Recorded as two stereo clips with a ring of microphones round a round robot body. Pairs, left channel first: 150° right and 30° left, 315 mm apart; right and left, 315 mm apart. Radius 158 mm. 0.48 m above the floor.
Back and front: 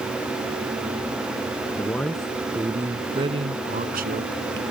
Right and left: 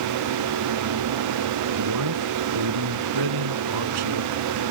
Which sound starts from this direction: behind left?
A man speaking, at 1.8 s.